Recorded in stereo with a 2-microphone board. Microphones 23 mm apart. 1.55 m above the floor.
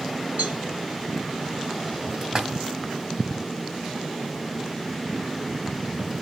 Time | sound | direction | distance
0.4 | a cowbell | 90° right | 4.5 m
2.2 | a splash | 30° right (ahead or behind) | 2.5 m